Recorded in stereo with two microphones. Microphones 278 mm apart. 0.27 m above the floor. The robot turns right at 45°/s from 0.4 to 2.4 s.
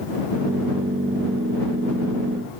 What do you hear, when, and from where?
Only background noise.